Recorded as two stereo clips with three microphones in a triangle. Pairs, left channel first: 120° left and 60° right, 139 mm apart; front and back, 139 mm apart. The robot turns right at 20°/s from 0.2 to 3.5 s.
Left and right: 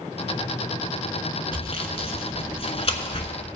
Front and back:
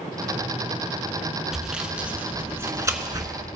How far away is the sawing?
About 1.1 m.